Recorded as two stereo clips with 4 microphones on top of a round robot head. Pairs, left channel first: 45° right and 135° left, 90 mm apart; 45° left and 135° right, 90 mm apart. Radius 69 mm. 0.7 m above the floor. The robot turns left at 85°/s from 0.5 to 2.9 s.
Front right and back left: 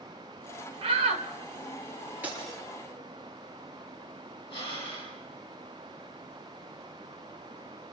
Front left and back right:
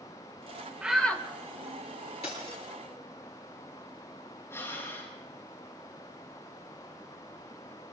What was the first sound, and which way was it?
A shout, 150° left.